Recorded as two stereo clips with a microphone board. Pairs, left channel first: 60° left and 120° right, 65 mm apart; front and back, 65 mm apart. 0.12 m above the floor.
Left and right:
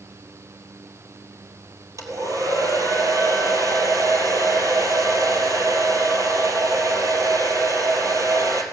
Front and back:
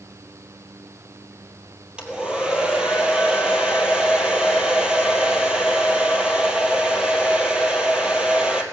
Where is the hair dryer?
105° right, 1.7 m.